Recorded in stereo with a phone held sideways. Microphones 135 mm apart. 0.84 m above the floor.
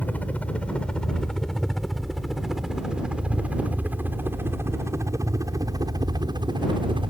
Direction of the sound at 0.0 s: 10° left (ahead or behind).